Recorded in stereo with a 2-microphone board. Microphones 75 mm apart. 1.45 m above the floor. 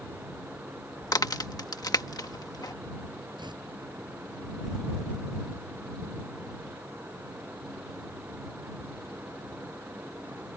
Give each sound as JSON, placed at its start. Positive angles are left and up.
{"t": 1.0, "sound": "a crack", "side_deg": 55}
{"t": 3.4, "sound": "tearing paper", "side_deg": -75}